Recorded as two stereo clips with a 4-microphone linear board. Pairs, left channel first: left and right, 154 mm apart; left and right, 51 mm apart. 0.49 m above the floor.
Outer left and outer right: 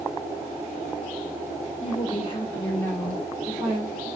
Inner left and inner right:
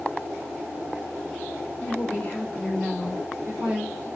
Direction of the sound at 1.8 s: 50° left (ahead or behind).